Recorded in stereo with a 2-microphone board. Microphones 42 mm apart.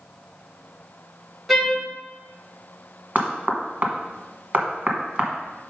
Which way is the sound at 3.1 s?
35° right (ahead or behind).